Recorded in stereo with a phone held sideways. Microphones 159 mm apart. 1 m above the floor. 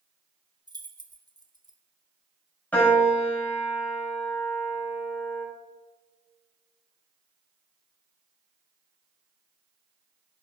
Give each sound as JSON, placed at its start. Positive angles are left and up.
{"t": 0.7, "sound": "keys jangling", "side_deg": -25, "distance_m": 1.6}
{"t": 2.7, "sound": "a piano", "side_deg": 10, "distance_m": 6.0}